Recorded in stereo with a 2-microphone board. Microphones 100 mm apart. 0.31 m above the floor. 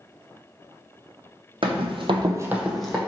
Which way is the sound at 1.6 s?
60° right (ahead or behind).